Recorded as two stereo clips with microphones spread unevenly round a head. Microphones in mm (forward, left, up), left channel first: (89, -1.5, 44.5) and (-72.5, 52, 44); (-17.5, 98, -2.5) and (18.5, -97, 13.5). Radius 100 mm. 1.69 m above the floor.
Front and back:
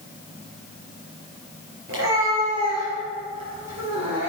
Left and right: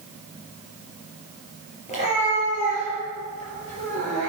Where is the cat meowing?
160° left, 4.5 m; by 4.3 s 155° left, 6 m.